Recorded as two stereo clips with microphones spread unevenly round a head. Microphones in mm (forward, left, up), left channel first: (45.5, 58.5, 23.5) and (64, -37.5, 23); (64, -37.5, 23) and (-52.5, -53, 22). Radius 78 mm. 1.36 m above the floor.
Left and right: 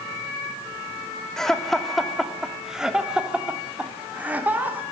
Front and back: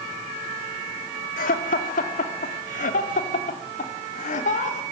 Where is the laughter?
15° left, 3.5 m; by 4.8 s 10° right, 4 m.